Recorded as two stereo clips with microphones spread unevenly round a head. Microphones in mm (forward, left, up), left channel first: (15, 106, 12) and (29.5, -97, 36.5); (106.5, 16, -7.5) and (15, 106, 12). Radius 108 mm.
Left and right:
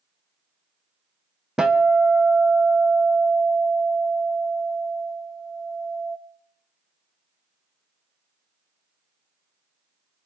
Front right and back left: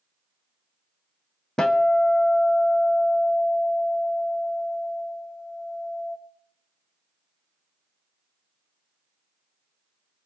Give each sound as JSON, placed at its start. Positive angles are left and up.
{"t": 1.6, "sound": "a guitar", "azimuth_deg": -145, "distance_m": 0.7}